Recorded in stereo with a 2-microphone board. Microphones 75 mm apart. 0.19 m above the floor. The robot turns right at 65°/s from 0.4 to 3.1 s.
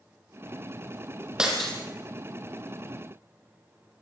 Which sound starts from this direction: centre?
Breaking glass, at 1.4 s.